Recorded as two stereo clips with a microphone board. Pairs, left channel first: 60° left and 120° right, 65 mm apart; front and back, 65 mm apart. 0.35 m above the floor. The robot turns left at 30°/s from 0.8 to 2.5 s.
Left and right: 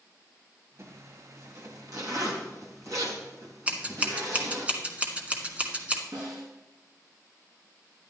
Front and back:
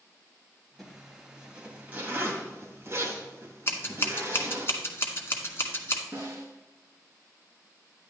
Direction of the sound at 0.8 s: 85° right.